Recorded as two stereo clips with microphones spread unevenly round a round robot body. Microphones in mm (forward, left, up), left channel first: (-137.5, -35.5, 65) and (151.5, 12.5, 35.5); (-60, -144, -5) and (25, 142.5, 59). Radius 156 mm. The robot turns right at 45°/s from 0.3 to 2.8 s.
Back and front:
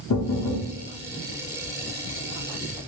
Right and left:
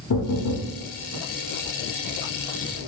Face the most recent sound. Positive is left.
turn(degrees=-15)